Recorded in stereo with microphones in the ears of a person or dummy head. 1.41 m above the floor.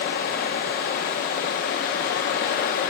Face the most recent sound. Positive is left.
turn(degrees=40)  # may be behind; listen again after turning